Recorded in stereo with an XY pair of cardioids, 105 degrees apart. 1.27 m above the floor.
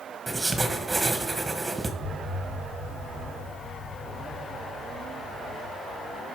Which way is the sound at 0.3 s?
15° right.